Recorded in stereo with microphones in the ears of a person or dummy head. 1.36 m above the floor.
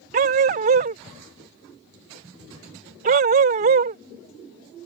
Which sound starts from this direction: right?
A dog barking, at 0.1 s.